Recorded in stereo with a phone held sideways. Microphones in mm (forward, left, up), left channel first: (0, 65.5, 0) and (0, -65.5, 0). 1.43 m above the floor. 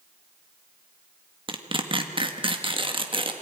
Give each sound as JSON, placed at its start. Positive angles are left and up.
{"t": 1.5, "sound": "tearing paper", "side_deg": -40, "distance_m": 1.7}